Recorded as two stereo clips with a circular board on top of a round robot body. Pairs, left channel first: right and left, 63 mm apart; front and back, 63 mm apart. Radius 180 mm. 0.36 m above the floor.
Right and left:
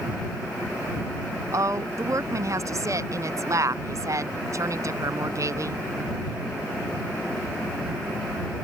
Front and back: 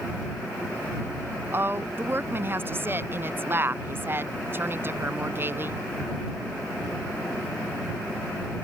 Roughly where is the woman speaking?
Behind left.